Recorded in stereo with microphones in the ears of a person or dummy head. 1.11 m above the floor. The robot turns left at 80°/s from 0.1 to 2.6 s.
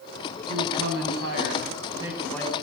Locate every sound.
0.5 s a man speaking: 35° right, 7 m; by 2.5 s 160° left, 7 m